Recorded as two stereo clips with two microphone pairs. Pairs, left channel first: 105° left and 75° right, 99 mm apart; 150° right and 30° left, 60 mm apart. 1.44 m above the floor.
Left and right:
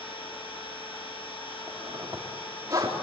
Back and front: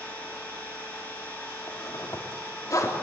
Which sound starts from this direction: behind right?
A zipper, at 1.7 s.